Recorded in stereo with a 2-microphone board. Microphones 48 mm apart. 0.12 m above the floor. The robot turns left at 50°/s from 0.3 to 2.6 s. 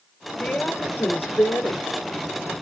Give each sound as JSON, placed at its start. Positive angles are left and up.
{"t": 0.4, "sound": "a woman speaking", "azimuth_deg": 155, "distance_m": 3.0}